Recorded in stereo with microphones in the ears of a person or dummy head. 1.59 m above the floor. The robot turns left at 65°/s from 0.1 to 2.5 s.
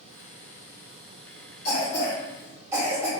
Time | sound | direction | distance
1.6 | a cough | 40° left (ahead or behind) | 1.5 m